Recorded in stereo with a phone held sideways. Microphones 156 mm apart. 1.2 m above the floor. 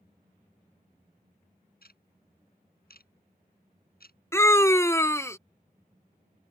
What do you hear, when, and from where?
1.8 s ticking: 75° left (ahead or behind)
4.3 s a scream: 15° left (ahead or behind)